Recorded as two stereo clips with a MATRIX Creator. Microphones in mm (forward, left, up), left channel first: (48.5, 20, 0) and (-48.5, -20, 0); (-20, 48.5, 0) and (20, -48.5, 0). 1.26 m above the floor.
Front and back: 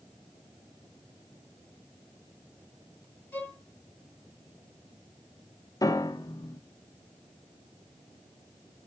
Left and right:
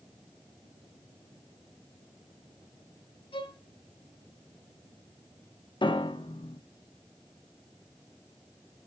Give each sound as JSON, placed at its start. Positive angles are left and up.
{"t": 3.3, "sound": "a violin", "azimuth_deg": 90, "distance_m": 1.7}
{"t": 5.8, "sound": "a piano", "azimuth_deg": 75, "distance_m": 0.6}